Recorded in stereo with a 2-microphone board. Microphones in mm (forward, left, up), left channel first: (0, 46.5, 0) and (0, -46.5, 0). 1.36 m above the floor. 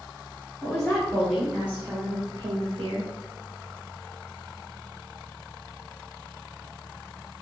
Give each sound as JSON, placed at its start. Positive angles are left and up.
{"t": 0.6, "sound": "a woman speaking", "side_deg": 10, "distance_m": 1.4}